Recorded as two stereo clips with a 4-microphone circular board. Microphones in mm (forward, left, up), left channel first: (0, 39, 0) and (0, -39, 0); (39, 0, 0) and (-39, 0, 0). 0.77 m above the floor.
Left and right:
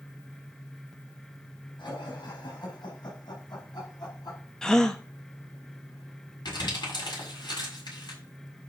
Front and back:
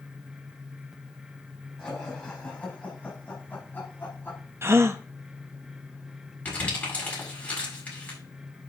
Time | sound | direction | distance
1.8 | laughter | 75° left | 5 m
4.6 | a gasp | 165° left | 1.0 m
6.5 | crumpling | 70° left | 7 m